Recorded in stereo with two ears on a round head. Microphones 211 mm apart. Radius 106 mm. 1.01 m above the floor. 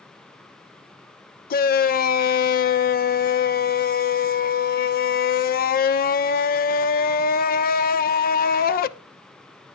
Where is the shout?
40° left (ahead or behind), 0.7 m.